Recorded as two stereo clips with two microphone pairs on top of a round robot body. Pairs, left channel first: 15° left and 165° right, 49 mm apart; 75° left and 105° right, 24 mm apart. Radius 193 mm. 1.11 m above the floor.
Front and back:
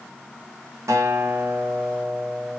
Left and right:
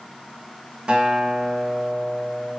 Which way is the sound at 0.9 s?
155° right.